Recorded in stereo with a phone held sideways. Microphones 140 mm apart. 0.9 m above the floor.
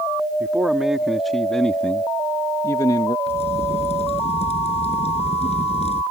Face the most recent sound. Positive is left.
turn(degrees=50)  # may be behind; listen again after turning